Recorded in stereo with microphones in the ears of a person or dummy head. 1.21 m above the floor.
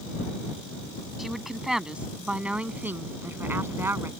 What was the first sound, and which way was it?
A woman speaking, centre (ahead or behind).